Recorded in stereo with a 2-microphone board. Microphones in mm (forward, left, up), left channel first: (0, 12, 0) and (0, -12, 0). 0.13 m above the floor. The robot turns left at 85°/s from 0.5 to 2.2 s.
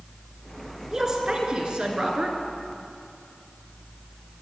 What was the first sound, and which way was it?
A woman speaking, 20° right.